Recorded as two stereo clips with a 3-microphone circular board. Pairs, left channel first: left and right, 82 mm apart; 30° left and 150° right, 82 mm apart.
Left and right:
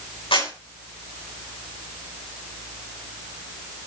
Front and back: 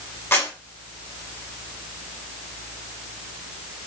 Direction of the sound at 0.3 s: 90° left.